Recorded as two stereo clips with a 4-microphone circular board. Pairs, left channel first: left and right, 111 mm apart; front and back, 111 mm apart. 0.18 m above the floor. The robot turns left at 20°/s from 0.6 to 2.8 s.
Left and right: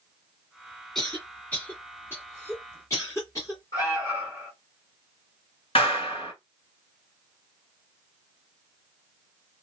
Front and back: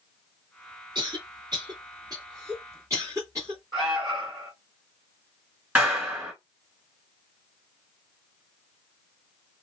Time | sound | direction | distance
0.9 | a cough | 170° left | 1.9 m
3.7 | an alarm | 90° left | 2.5 m
5.8 | a clap | 105° left | 1.8 m